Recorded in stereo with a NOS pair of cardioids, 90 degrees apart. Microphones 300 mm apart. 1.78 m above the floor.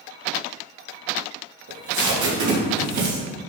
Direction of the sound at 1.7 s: 70° right.